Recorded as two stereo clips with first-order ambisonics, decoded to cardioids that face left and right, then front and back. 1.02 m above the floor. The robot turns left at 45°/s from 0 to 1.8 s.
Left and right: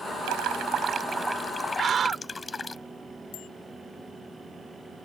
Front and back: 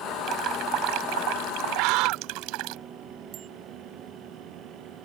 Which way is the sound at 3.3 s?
130° left.